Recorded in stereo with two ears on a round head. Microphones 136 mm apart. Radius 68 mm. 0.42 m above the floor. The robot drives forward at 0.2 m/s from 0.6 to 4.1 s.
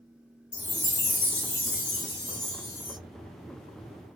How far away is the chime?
About 1.9 m.